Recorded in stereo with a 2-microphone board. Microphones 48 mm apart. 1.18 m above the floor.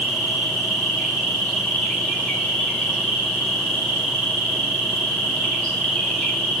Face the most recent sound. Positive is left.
turn(degrees=15)  # may be behind; listen again after turning